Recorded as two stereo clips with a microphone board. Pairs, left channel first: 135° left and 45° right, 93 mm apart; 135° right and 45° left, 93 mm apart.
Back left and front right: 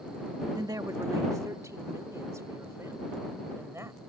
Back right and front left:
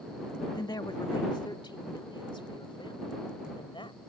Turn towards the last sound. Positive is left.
turn(degrees=-105)